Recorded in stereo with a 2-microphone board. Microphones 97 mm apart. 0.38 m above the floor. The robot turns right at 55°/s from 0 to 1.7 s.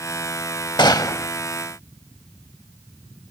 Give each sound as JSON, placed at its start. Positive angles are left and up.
{"t": 0.8, "sound": "a gunshot", "side_deg": 50}